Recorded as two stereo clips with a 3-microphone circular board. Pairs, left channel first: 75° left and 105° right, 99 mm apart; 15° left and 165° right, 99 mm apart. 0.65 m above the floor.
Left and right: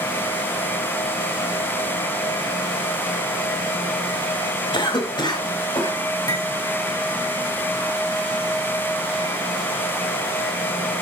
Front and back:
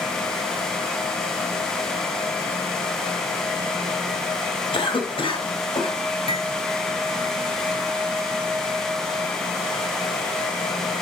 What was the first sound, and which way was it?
A cough, 40° left.